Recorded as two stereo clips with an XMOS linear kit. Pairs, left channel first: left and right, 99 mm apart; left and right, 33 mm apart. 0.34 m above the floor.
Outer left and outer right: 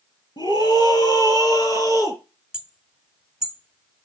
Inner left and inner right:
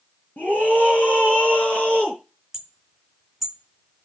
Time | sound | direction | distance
0.4 | a scream | 45° left (ahead or behind) | 5 m
2.5 | hammering | 10° right (ahead or behind) | 1.6 m